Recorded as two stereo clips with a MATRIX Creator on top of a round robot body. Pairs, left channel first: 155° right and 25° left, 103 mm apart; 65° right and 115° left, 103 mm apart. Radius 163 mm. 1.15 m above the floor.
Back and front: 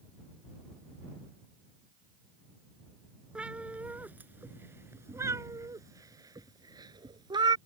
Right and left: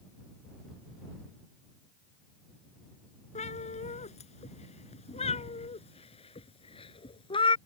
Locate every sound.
3.4 s a cat meowing: 60° right; by 7.6 s 25° right